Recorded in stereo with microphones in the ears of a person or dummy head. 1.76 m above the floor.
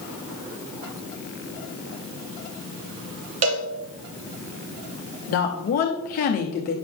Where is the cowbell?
45° right (ahead or behind), 1.0 m.